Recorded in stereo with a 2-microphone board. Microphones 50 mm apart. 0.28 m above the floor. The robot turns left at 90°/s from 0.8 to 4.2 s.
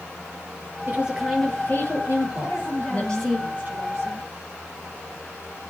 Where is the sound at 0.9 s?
140° right, 6 m; by 3.4 s 10° right, 6 m.